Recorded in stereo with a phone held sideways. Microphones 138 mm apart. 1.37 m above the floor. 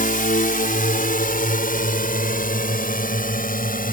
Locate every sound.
0.0 s a drone: 80° left; by 3.9 s 85° left